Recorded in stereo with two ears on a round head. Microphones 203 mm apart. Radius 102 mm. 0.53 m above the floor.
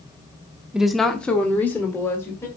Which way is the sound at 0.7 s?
5° right (ahead or behind).